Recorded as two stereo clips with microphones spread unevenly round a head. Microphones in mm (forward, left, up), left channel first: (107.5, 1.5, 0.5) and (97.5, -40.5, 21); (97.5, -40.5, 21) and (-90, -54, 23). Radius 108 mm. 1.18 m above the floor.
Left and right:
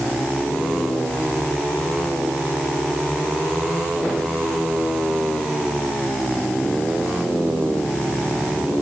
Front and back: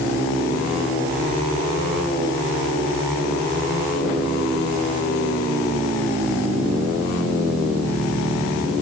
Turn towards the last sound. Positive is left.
No sound to turn to.